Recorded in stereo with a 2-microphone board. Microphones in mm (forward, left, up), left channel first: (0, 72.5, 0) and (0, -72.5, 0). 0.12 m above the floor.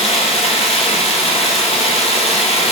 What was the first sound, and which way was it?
Running water, 45° left (ahead or behind).